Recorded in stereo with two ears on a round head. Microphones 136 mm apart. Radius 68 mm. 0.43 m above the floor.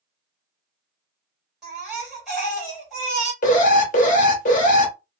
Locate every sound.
1.6 s a baby crying: centre (ahead or behind), 2 m
3.4 s an alarm: 55° left (ahead or behind), 1.1 m